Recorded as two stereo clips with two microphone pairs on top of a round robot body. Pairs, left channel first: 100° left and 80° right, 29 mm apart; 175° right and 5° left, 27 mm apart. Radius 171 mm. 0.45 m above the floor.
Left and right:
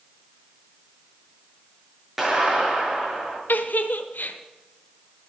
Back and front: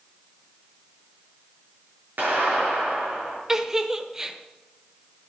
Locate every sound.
2.2 s a clap: straight ahead, 7 m
3.5 s a giggle: 75° left, 1.2 m